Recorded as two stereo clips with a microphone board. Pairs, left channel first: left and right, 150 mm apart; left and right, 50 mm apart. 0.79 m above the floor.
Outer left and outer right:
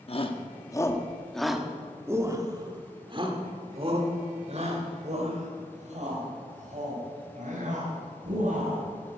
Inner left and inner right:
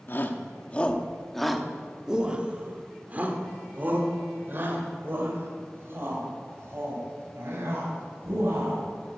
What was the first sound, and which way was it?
A shout, 40° left (ahead or behind).